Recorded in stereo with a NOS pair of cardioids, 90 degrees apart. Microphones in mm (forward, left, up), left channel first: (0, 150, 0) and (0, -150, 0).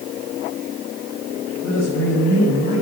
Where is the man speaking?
45° left, 5.5 m; by 2.8 s 35° left, 6.5 m.